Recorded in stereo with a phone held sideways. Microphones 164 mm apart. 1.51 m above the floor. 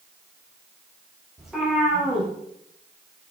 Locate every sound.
1.4 s a cat meowing: centre (ahead or behind), 4 m